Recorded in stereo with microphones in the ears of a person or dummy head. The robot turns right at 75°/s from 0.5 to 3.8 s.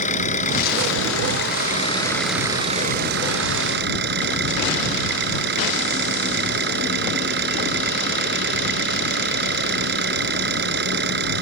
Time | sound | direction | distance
0.0 | an engine running | 45° left | ?